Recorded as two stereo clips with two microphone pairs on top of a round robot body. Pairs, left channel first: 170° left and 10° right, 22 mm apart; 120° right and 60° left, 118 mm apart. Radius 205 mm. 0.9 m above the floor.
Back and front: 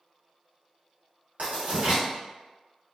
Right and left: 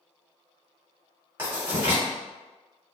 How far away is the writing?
About 1.8 m.